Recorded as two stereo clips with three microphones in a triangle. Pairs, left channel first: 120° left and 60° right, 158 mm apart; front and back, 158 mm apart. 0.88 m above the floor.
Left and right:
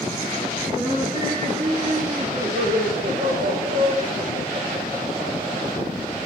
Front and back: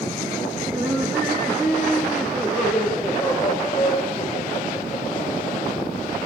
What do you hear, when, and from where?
0.7 s laughter: 105° right, 3 m; by 5.8 s straight ahead, 1.7 m